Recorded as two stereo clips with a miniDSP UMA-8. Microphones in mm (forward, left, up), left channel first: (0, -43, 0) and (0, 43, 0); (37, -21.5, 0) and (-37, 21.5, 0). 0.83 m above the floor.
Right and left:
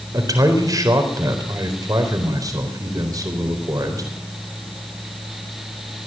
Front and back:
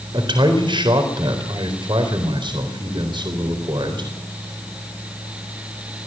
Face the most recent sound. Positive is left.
turn(degrees=135)